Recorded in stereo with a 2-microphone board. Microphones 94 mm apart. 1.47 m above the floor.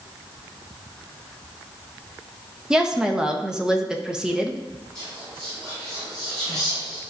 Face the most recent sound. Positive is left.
turn(degrees=-35)  # may be behind; listen again after turning